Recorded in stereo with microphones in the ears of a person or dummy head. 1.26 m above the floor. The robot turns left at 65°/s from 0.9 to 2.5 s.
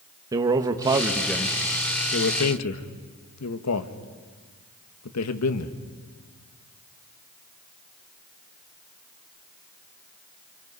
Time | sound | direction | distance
0.3 | a man speaking | 20° right (ahead or behind) | 1.6 m